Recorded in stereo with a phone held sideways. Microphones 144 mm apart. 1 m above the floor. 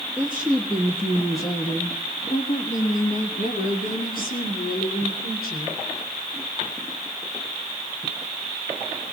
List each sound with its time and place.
0.2 s a woman speaking: 15° right (ahead or behind), 1.2 m; by 5.8 s 80° left, 3 m